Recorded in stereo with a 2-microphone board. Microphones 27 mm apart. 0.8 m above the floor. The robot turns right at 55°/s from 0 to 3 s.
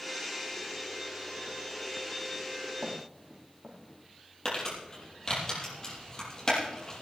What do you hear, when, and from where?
2.8 s footsteps: 50° right (ahead or behind), 4 m; by 3.8 s 60° right (ahead or behind), 4 m
4.5 s crumpling: 20° left (ahead or behind), 6.5 m